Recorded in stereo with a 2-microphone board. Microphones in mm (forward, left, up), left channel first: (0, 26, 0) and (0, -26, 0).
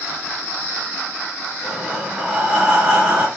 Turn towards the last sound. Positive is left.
turn(degrees=-20)  # may be behind; listen again after turning